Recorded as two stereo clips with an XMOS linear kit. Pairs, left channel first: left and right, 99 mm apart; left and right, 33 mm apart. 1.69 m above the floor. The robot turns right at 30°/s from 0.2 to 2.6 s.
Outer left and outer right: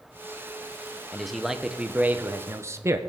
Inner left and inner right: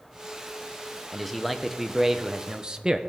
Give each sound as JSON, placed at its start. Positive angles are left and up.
{"t": 1.1, "sound": "a man speaking", "azimuth_deg": 175, "distance_m": 0.7}